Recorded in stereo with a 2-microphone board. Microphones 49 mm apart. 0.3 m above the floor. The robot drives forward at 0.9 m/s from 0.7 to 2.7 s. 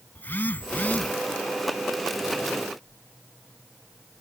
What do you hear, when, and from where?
0.1 s a phone buzzing: 40° left (ahead or behind); by 1.1 s 30° left (ahead or behind)